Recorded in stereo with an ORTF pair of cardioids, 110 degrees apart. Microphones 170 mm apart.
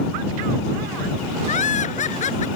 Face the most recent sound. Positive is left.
turn(degrees=45)